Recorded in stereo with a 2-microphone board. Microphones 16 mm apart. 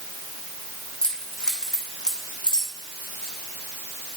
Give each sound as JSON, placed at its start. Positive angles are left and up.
{"t": 1.0, "sound": "keys jangling", "side_deg": 55, "distance_m": 4.0}